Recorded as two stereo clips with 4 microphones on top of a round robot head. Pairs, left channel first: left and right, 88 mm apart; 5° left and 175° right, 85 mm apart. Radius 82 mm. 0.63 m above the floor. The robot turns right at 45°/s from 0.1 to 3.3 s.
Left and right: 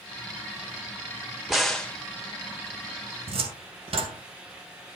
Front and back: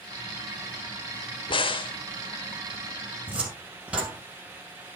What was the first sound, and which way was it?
A crack, straight ahead.